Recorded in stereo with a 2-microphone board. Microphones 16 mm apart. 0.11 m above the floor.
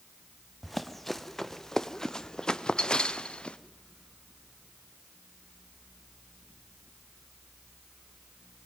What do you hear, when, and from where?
0.6 s running footsteps: centre (ahead or behind), 1.9 m; by 3.6 s 65° left (ahead or behind), 1.6 m